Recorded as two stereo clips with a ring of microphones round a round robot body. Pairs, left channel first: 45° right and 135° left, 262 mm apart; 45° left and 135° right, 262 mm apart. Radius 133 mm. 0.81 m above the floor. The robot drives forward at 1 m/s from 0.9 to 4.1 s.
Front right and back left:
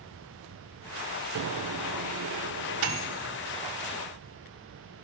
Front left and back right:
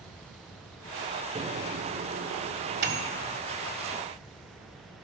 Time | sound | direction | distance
1.4 | a microwave | 150° left | 0.5 m